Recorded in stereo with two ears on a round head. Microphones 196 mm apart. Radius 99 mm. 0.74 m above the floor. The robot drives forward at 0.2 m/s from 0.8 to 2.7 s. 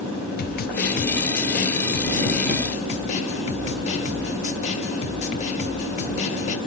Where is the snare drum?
45° left (ahead or behind), 0.5 m; by 6.6 s 30° left (ahead or behind), 0.7 m.